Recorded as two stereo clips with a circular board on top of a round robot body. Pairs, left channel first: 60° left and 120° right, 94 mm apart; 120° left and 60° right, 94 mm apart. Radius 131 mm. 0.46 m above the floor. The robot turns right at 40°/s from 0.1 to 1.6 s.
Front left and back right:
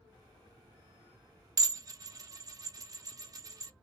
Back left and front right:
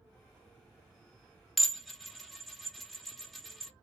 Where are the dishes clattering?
155° right, 0.6 m; by 3.7 s 150° right, 0.6 m.